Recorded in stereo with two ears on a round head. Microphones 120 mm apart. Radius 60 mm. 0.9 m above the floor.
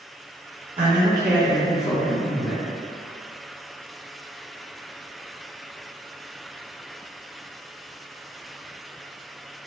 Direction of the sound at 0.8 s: 50° right (ahead or behind).